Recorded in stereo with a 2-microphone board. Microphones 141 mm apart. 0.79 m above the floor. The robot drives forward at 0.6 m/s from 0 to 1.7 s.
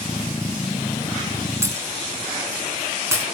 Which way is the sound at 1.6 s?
20° right (ahead or behind).